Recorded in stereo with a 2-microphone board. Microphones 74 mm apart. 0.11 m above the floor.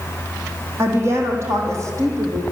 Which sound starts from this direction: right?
A woman speaking, at 0.8 s.